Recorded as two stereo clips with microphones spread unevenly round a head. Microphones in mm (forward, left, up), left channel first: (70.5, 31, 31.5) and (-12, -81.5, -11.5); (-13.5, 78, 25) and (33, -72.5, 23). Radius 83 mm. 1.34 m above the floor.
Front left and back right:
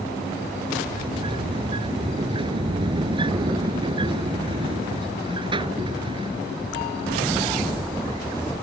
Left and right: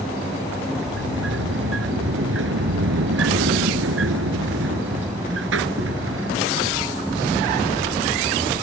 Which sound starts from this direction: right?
A sliding door, at 0.8 s.